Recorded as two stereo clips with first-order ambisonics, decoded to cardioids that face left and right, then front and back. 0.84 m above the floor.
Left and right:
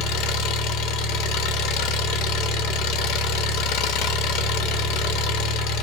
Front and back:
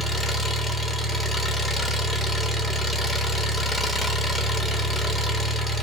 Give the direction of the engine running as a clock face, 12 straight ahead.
9 o'clock.